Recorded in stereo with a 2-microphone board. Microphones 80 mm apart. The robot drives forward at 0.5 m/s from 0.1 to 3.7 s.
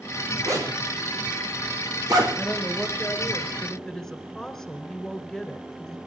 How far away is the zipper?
About 4.5 m.